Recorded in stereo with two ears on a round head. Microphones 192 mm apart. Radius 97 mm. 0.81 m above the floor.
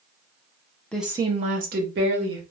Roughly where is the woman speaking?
Centre.